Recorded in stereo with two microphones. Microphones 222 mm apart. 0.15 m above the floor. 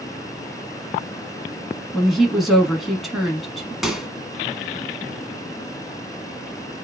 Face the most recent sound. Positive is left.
turn(degrees=0)  # may be behind; listen again after turning